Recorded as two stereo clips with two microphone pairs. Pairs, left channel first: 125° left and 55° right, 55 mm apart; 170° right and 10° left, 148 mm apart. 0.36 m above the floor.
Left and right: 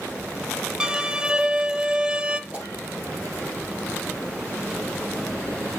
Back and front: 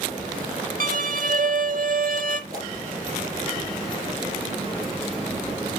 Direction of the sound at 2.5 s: 10° left.